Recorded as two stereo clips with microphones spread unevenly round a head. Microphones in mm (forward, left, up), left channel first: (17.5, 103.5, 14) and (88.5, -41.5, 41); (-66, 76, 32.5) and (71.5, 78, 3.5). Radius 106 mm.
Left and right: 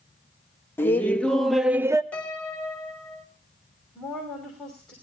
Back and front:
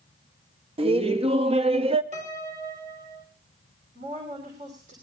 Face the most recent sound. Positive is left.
turn(degrees=30)